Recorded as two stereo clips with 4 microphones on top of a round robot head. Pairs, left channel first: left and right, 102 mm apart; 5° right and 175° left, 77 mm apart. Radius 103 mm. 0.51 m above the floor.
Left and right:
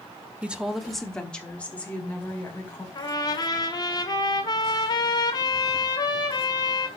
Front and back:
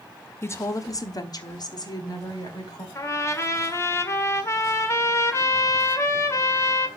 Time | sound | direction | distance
0.4 | a woman speaking | 20° right | 0.9 m
3.0 | a trumpet | 45° left | 1.7 m